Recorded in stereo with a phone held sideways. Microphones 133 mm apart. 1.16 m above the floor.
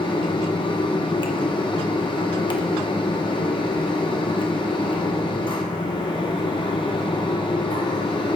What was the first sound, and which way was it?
A fan, 35° left (ahead or behind).